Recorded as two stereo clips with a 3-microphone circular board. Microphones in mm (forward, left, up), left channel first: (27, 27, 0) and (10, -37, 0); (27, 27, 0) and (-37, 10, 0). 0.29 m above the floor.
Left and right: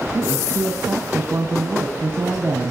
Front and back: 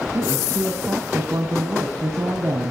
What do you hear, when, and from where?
0.1 s a woman speaking: 140° right, 2.0 m